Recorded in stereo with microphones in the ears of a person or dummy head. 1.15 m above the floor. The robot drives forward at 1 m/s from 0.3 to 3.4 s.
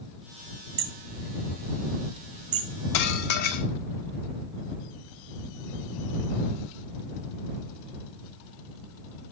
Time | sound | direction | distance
0.8 | hammering | 50° right (ahead or behind) | 1.4 m
2.9 | dishes clattering | 65° left (ahead or behind) | 1.8 m